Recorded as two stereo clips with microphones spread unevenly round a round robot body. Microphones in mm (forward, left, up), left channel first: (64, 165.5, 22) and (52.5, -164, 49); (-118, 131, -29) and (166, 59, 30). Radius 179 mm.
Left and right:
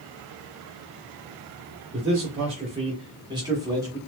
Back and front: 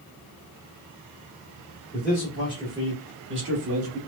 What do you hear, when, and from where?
1.9 s a man speaking: 155° right, 1.2 m; by 4.0 s 10° right, 1.3 m